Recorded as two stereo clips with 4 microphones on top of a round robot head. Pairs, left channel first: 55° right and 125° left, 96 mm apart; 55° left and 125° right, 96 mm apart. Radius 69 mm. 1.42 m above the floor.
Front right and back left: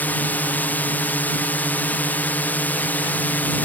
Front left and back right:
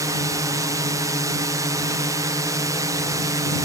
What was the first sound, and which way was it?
A drone, 115° right.